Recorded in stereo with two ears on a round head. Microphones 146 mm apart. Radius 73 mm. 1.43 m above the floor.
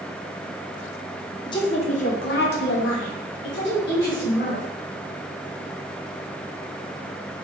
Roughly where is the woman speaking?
Left.